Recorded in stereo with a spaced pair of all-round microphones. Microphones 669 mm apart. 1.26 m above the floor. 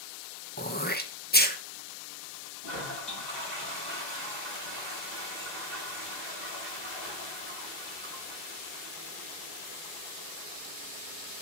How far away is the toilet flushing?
About 9 m.